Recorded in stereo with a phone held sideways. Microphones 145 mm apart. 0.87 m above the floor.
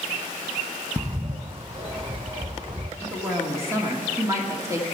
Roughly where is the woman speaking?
Centre.